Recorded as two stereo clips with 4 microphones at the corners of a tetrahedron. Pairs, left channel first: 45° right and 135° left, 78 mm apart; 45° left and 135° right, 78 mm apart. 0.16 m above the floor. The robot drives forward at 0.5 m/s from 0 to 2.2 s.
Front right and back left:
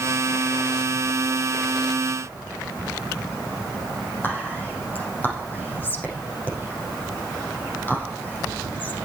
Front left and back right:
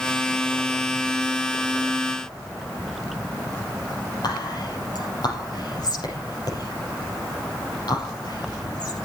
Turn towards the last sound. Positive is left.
turn(degrees=20)